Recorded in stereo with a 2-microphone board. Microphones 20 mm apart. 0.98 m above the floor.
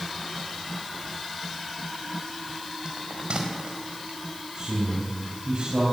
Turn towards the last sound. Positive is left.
turn(degrees=-50)  # may be behind; listen again after turning